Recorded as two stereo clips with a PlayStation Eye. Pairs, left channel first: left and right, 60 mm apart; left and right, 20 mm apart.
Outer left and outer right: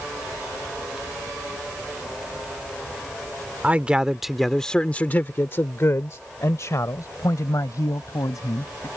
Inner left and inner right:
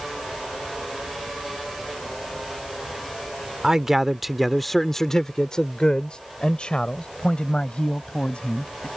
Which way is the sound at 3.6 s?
25° right (ahead or behind).